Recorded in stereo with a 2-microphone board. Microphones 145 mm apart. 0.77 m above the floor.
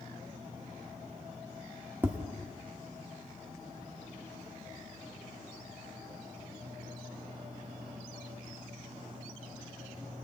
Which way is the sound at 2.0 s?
10° right (ahead or behind).